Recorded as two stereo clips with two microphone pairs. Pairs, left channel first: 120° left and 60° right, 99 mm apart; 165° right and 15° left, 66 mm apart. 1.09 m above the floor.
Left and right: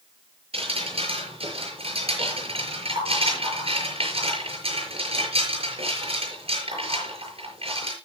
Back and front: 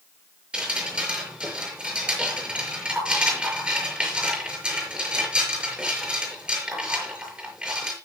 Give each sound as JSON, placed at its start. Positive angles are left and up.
{"t": 0.5, "sound": "dripping", "azimuth_deg": -60, "distance_m": 5.5}